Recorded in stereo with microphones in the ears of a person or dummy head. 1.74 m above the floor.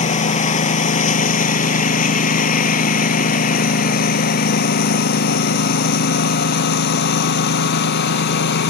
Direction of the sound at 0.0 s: 40° left (ahead or behind).